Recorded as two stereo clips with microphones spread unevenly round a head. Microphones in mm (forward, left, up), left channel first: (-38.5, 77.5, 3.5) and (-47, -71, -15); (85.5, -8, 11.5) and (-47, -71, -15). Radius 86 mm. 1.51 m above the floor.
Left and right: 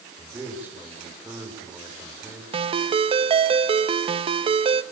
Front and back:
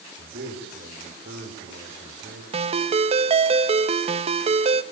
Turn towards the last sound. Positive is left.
turn(degrees=-125)